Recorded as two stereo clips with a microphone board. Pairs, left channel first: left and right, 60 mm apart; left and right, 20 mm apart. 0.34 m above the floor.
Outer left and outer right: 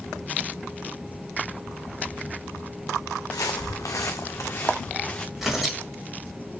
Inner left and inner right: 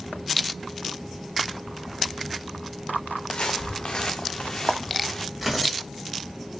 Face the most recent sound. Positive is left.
turn(degrees=-5)  # may be behind; listen again after turning